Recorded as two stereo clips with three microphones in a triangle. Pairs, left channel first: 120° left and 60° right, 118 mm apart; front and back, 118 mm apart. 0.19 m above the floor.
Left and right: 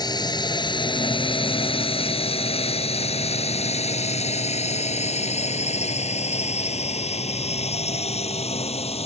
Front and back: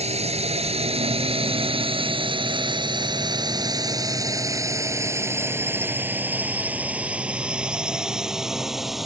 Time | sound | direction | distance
0.0 | a drone | 170° left | ?